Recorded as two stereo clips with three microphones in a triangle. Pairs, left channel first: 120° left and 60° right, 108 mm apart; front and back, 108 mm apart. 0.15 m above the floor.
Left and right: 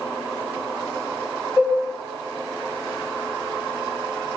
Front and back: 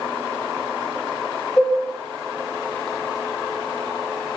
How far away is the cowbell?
About 1.7 m.